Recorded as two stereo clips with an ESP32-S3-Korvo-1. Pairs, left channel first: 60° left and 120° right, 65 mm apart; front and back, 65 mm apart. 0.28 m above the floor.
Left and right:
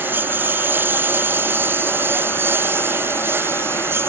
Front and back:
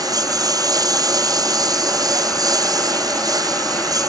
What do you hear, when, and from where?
0.0 s a lawn mower: straight behind; by 4.1 s 170° right